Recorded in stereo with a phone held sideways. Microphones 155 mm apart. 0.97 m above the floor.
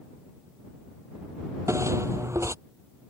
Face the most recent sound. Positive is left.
turn(degrees=-20)  # may be behind; listen again after turning